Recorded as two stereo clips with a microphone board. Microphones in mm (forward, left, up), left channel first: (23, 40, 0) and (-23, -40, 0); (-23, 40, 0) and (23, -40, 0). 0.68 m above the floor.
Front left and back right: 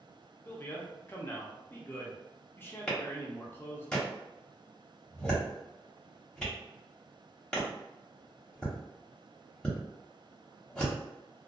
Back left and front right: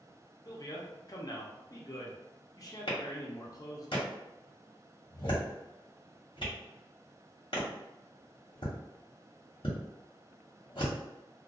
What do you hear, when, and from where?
0.5 s a man speaking: 115° left, 0.7 m
2.9 s a clap: 140° left, 1.1 m